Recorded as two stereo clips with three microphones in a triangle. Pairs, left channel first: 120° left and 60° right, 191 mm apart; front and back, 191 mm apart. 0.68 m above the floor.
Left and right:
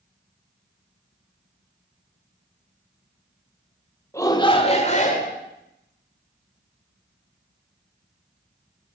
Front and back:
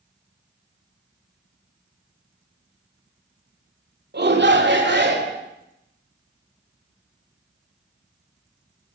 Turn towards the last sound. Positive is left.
turn(degrees=160)